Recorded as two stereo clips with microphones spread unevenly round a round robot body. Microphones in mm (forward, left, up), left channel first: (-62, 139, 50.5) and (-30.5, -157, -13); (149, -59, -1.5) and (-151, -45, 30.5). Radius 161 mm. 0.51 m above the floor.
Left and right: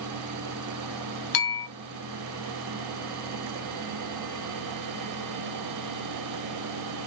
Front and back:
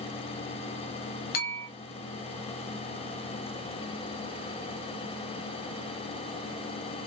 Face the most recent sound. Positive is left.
turn(degrees=60)